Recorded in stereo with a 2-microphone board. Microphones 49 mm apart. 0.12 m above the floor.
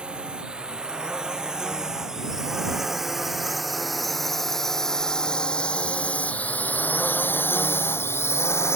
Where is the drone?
20° right (ahead or behind); by 8.8 s 65° left (ahead or behind).